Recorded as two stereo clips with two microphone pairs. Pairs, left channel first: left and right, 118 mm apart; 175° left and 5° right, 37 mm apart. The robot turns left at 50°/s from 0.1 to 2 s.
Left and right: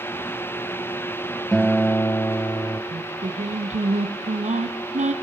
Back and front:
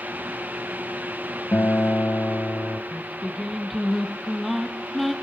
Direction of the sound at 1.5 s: Straight behind.